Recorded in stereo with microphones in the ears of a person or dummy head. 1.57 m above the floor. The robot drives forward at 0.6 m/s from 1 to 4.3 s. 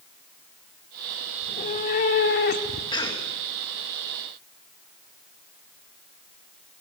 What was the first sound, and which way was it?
A cat meowing, 40° left (ahead or behind).